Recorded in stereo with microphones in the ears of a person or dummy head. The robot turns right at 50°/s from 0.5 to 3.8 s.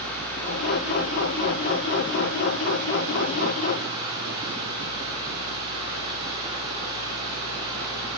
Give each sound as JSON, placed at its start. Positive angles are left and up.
{"t": 0.0, "sound": "running water", "azimuth_deg": 170, "distance_m": 2.0}